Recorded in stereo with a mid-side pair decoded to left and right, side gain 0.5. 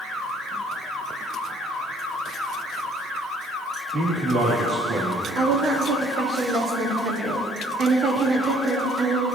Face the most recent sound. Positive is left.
turn(degrees=-60)